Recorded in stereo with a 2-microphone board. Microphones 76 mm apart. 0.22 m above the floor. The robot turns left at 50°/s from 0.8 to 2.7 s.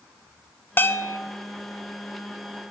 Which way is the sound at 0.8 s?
25° left (ahead or behind).